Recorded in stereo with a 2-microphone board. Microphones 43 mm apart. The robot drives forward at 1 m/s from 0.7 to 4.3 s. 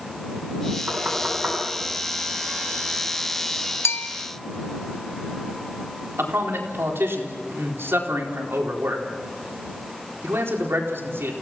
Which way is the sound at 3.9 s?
80° left.